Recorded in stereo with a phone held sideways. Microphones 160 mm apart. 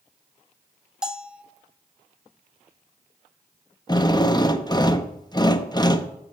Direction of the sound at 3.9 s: 25° left (ahead or behind).